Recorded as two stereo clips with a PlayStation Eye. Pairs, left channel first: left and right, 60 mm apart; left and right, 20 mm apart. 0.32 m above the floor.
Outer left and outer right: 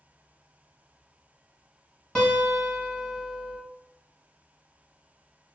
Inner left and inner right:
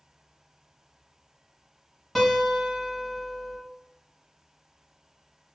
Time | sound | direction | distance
2.1 | a guitar | 15° left (ahead or behind) | 1.4 m